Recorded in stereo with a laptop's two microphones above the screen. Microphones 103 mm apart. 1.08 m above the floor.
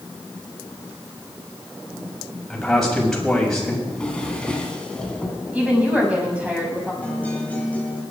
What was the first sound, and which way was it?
A man speaking, 5° left (ahead or behind).